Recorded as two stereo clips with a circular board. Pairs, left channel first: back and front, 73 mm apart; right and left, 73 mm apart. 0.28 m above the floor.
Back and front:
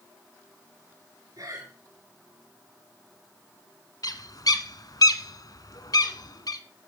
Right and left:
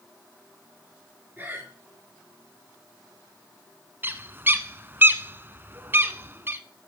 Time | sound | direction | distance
1.4 | breathing | 30° left | 5.5 m
4.0 | a bird | 150° left | 1.0 m